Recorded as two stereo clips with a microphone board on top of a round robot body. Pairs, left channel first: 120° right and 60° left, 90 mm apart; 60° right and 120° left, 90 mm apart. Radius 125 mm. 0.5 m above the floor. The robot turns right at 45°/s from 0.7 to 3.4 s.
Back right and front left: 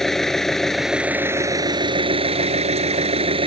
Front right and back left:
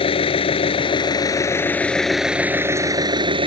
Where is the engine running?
35° right; by 3.5 s 85° left.